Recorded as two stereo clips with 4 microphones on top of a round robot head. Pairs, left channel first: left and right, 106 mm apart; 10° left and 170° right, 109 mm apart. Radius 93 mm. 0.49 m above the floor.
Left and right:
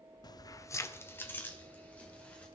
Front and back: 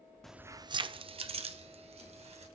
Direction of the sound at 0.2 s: 90° left.